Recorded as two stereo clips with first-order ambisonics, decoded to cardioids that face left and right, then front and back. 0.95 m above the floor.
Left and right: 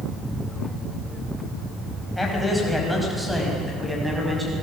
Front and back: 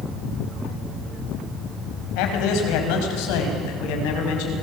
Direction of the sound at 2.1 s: 5° left.